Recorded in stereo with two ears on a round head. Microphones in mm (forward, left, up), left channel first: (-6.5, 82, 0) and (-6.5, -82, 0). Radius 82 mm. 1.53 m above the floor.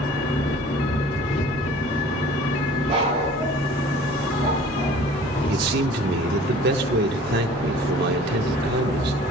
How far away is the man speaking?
About 1.5 m.